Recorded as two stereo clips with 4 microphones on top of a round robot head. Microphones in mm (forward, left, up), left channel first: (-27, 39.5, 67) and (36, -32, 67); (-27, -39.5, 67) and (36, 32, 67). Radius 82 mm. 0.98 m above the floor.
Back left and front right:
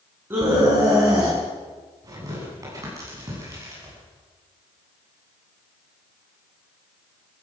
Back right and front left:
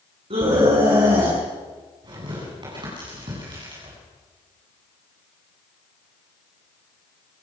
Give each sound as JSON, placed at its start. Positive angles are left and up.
{"t": 0.3, "sound": "a scream", "azimuth_deg": 20, "distance_m": 8.5}
{"t": 2.0, "sound": "tearing paper", "azimuth_deg": 5, "distance_m": 10.0}